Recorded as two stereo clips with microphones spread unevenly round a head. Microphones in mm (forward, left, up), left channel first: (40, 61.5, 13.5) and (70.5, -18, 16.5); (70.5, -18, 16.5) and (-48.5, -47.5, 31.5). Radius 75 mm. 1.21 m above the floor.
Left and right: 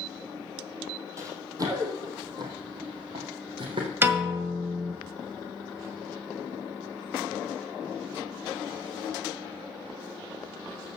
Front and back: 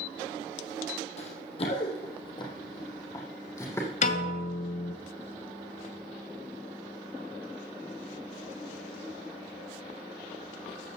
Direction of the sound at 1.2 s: 20° right.